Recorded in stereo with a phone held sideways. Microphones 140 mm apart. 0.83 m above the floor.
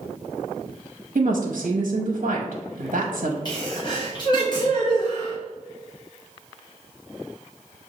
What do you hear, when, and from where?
1.1 s a woman speaking: 65° right (ahead or behind), 0.8 m
3.5 s a sneeze: 30° left (ahead or behind), 1.1 m